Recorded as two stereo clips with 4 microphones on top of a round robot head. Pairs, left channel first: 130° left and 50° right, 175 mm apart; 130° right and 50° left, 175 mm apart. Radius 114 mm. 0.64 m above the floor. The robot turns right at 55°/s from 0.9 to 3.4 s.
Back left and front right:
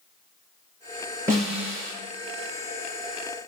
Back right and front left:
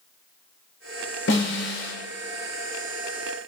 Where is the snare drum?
125° right, 4 m; by 1.9 s 90° right, 4 m.